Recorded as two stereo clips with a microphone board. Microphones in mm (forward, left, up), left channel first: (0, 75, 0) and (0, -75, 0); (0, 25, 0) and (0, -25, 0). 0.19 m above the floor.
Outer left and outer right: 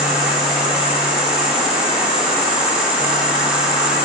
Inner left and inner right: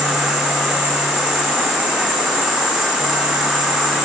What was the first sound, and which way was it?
An insect, 10° right (ahead or behind).